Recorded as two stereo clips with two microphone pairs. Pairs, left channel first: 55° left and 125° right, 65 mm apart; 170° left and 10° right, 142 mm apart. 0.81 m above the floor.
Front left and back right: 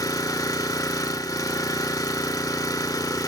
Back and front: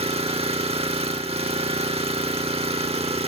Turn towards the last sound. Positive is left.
turn(degrees=35)